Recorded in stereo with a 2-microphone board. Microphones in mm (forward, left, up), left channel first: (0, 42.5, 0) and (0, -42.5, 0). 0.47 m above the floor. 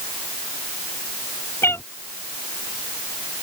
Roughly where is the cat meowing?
Left.